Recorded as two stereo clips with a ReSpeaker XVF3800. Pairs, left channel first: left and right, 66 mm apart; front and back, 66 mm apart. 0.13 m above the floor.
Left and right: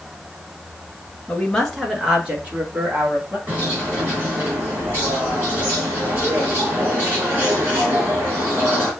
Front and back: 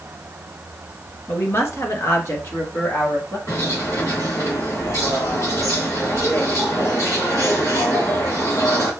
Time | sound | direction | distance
1.3 | a woman speaking | 30° left | 1.4 m
3.5 | a bird | 30° right | 3 m